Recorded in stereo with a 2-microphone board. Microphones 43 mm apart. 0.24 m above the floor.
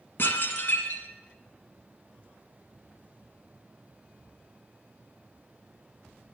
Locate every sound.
0.2 s dishes clattering: 60° left (ahead or behind), 1.6 m